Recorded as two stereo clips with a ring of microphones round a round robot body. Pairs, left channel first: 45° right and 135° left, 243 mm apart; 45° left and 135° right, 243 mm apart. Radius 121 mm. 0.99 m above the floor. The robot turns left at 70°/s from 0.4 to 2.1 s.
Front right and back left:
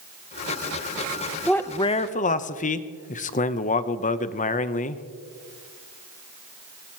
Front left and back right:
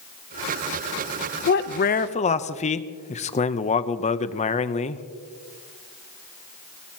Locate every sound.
1.5 s a man speaking: 40° left, 0.7 m; by 5.0 s 5° right, 0.7 m